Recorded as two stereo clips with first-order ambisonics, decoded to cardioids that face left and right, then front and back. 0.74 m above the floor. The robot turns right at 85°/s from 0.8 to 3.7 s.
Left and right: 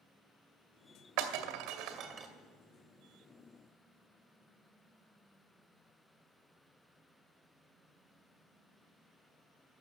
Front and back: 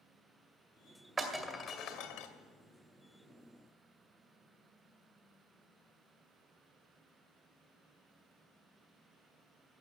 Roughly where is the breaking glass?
Right.